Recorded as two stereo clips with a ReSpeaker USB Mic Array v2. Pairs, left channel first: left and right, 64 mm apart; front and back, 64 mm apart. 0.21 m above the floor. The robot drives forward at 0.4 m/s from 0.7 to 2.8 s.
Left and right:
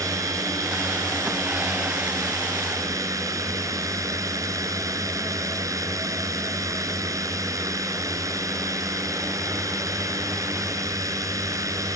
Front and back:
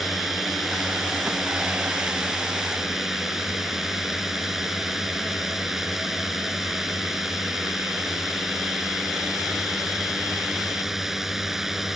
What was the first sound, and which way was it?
A drone, 95° right.